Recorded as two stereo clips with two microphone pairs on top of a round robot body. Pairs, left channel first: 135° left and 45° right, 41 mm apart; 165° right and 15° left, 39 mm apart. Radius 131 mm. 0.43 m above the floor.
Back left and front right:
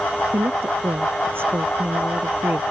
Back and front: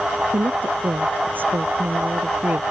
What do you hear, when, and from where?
0.3 s a woman speaking: 15° right